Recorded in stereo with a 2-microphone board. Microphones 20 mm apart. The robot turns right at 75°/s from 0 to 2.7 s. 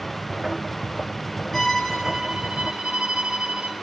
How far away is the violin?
About 2.5 m.